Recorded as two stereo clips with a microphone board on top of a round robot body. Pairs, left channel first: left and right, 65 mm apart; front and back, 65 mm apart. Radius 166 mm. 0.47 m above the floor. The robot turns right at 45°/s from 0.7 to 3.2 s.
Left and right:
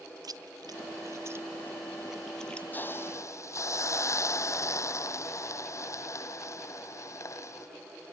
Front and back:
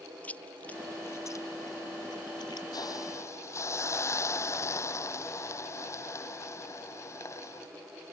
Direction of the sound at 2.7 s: 25° left.